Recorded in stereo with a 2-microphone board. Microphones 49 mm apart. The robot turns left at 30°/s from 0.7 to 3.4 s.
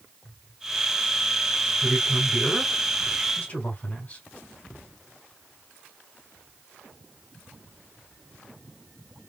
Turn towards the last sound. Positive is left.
turn(degrees=135)